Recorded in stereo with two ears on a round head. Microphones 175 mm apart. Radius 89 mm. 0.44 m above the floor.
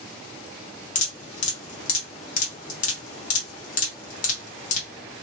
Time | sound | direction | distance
0.9 | dripping | 40° left (ahead or behind) | 1.0 m